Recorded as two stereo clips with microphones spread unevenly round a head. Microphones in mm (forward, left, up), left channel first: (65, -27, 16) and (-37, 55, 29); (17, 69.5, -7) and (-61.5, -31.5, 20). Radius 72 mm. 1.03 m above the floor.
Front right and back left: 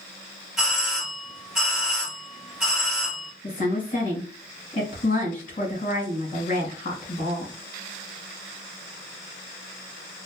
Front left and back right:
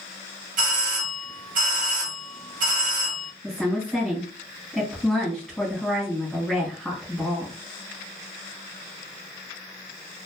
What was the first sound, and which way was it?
A doorbell, 130° right.